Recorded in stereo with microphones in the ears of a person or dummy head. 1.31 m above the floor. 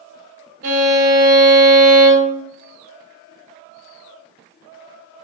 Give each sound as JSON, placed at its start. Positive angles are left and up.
{"t": 0.6, "sound": "a violin", "side_deg": -50, "distance_m": 0.8}